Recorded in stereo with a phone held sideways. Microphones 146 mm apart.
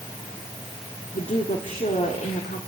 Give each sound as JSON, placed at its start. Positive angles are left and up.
{"t": 1.1, "sound": "a woman speaking", "side_deg": 55, "distance_m": 2.5}